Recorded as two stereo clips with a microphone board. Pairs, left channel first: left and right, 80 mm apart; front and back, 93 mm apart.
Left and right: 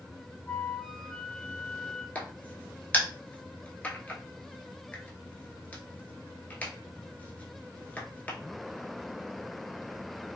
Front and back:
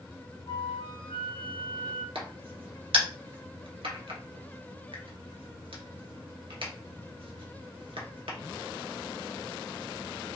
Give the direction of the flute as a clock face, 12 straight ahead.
11 o'clock.